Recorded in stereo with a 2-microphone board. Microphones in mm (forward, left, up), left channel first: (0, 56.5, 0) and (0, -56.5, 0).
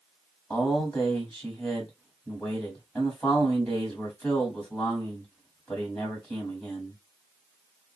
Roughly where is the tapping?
No tapping in this recording.